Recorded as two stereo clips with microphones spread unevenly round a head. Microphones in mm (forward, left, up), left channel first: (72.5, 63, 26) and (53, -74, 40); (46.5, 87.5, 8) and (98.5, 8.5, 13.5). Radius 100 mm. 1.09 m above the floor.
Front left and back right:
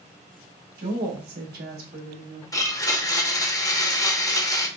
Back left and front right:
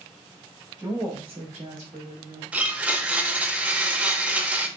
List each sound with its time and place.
0.8 s a woman speaking: 140° right, 1.1 m; by 2.4 s 70° right, 1.8 m
2.5 s a blender: 20° left, 0.8 m